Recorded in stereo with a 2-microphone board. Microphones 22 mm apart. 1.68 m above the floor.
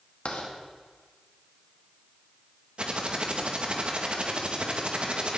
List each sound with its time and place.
0.2 s writing: 75° left (ahead or behind), 2 m
2.8 s typing on a keyboard: 55° right (ahead or behind), 1.5 m